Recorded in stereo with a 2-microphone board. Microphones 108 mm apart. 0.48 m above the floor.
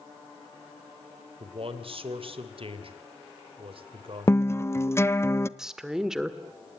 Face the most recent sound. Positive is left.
turn(degrees=-5)  # may be behind; listen again after turning